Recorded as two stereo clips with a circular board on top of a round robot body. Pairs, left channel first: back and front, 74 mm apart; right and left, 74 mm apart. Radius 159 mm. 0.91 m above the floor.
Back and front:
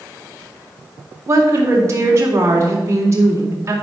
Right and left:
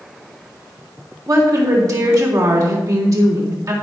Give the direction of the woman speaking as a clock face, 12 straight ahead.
10 o'clock.